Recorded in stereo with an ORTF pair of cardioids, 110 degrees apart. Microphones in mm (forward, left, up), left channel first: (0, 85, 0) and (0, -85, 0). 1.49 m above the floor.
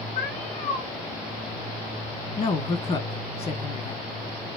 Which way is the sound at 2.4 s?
40° left.